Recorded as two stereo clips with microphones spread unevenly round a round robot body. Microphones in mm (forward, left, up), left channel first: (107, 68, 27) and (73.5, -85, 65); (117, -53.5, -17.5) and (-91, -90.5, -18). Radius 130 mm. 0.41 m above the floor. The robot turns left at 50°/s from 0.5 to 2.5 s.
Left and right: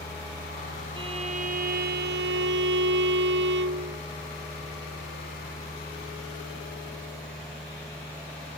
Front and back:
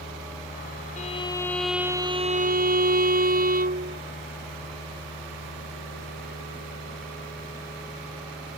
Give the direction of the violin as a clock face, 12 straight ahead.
2 o'clock.